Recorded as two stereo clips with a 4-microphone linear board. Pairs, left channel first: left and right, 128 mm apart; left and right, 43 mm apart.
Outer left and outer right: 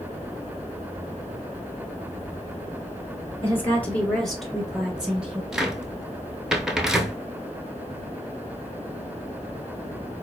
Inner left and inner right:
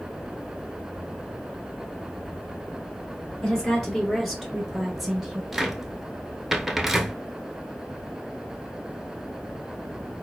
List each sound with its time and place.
3.4 s a woman speaking: 15° left (ahead or behind), 1.2 m; by 5.4 s 10° right (ahead or behind), 1.7 m
5.5 s a cupboard door: 5° right (ahead or behind), 0.6 m